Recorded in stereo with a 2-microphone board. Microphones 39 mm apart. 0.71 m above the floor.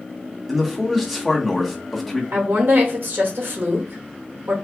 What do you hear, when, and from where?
0.5 s a man speaking: 5° right (ahead or behind), 1.1 m
2.3 s a woman speaking: 75° right (ahead or behind), 1.7 m